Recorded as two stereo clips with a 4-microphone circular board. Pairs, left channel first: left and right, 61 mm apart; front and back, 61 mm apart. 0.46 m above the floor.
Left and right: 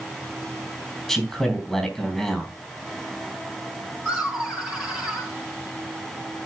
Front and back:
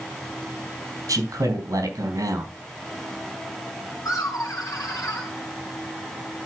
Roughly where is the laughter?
Ahead.